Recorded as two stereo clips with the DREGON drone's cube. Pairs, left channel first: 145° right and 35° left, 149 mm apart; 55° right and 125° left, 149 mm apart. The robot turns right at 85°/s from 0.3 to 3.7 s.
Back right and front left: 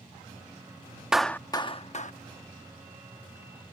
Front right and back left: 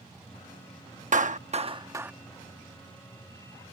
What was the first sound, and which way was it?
A clap, 120° left.